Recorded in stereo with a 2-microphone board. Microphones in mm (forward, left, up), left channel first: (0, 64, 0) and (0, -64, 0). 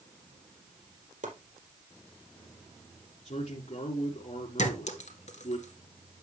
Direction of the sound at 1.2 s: 80° right.